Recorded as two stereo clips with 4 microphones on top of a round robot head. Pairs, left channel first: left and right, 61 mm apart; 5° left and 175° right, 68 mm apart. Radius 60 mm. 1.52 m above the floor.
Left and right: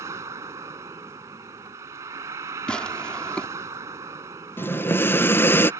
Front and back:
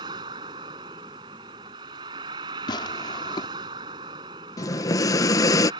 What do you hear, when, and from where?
0.0 s a vehicle: 145° right
2.7 s tearing paper: 15° left
4.6 s breathing: 35° left